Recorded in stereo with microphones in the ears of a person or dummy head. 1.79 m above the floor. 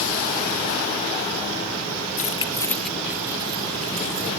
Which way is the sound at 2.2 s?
45° left (ahead or behind).